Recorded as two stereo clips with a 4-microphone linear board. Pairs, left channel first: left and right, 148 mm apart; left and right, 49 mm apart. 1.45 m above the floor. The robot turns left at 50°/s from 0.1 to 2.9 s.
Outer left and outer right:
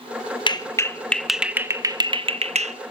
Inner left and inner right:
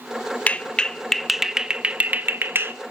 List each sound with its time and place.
0.5 s a clap: 30° left (ahead or behind), 0.9 m; by 2.8 s 50° right (ahead or behind), 0.9 m